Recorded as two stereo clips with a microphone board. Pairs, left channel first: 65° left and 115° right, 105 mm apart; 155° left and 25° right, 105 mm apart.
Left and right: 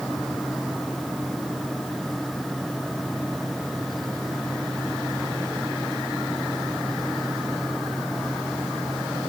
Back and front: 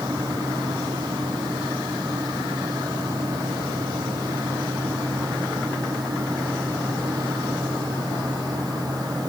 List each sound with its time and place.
Only background noise.